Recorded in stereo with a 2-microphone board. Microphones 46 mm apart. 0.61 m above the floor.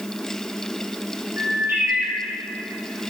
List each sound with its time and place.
1.4 s a bird: 65° right (ahead or behind), 3 m